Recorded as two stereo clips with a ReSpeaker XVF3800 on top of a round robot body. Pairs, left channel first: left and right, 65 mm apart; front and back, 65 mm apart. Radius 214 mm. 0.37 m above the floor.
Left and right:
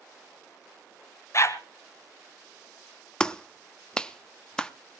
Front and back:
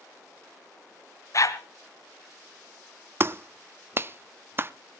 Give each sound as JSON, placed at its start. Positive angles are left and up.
{"t": 1.3, "sound": "a dog barking", "azimuth_deg": 40, "distance_m": 0.9}
{"t": 3.2, "sound": "a clap", "azimuth_deg": 160, "distance_m": 0.8}